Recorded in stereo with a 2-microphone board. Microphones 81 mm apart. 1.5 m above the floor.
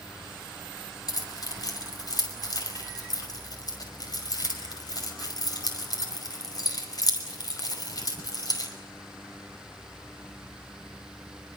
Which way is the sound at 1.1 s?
50° left (ahead or behind).